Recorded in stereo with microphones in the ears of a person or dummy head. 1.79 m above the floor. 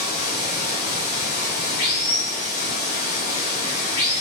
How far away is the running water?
About 1.7 m.